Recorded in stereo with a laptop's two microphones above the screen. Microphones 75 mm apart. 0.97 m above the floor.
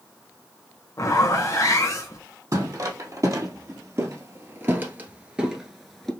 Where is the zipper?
45° left (ahead or behind), 1.0 m.